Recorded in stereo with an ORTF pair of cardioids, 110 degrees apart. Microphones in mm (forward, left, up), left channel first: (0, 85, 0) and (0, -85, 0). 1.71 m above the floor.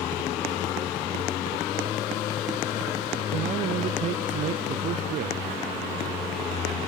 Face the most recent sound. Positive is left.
turn(degrees=-50)